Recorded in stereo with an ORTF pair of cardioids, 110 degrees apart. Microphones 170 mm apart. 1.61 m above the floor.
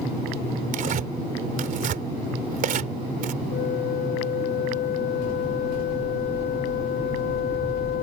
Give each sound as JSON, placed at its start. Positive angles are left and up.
{"t": 0.7, "sound": "tearing paper", "azimuth_deg": -55}
{"t": 3.5, "sound": "a flute", "azimuth_deg": 65}